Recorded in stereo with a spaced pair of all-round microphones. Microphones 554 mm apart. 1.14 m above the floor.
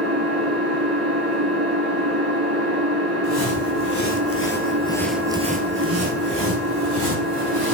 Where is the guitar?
No guitar in this recording.